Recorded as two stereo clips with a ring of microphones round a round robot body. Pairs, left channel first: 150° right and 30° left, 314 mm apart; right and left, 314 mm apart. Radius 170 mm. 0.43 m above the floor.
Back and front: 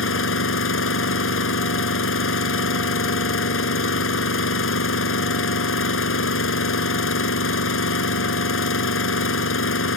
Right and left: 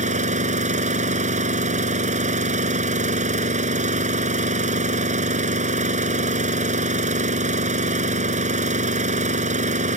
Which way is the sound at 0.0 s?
160° left.